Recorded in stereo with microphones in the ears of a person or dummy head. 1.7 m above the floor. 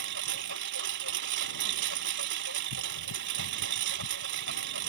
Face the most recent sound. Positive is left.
turn(degrees=-65)  # may be behind; listen again after turning